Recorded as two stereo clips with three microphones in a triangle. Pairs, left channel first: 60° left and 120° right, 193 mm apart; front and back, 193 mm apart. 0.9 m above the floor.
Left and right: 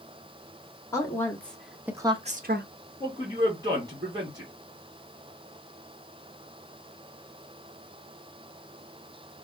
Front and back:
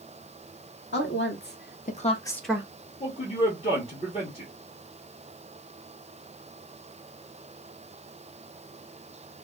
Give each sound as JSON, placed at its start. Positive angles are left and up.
{"t": 0.9, "sound": "a woman speaking", "azimuth_deg": -15, "distance_m": 1.6}
{"t": 3.0, "sound": "a man speaking", "azimuth_deg": -50, "distance_m": 1.6}